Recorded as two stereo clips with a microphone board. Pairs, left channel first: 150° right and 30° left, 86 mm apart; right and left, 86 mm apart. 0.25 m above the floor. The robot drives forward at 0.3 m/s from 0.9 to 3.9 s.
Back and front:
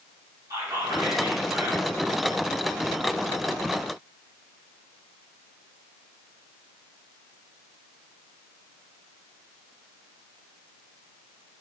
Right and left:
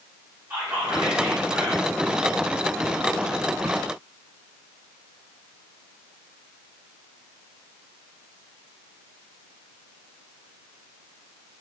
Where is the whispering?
45° left, 1.9 m; by 2.0 s 55° left, 1.8 m.